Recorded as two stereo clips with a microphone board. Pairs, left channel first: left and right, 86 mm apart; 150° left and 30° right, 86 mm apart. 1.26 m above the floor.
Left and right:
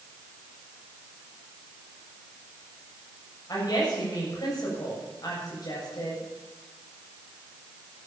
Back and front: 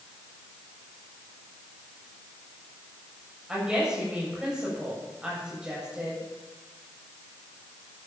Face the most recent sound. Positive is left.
turn(degrees=50)